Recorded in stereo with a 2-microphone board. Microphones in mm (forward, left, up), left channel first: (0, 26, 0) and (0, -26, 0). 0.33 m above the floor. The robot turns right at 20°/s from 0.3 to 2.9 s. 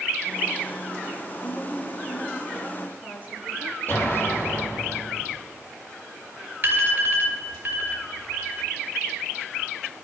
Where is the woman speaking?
115° left, 4.5 m; by 3.8 s 145° left, 4.5 m.